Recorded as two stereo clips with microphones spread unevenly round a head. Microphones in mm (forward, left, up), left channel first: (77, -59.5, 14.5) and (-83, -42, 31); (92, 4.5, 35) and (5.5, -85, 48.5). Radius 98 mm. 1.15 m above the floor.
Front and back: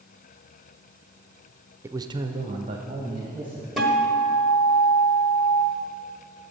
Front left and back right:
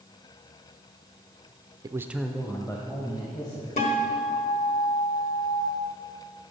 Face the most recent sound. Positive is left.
turn(degrees=90)